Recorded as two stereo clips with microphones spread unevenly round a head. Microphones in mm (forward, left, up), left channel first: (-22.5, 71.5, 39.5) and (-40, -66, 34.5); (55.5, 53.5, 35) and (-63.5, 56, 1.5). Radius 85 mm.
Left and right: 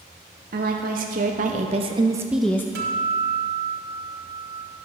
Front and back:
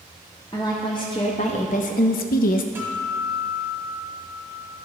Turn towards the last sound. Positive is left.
turn(degrees=-95)